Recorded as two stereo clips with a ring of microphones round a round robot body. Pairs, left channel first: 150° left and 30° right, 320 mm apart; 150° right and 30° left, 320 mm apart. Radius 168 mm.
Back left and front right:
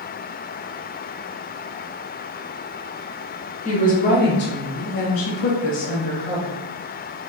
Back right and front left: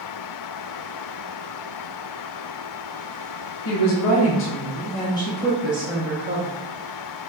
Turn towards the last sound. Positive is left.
turn(degrees=100)